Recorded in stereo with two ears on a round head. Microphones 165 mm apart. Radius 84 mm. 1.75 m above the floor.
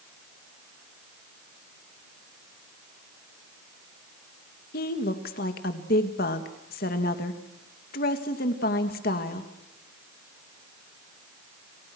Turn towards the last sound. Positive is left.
turn(degrees=50)  # may be behind; listen again after turning